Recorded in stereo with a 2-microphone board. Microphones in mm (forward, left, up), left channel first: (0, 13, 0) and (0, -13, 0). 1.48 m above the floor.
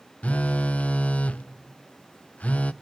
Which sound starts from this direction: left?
A phone buzzing, at 0.2 s.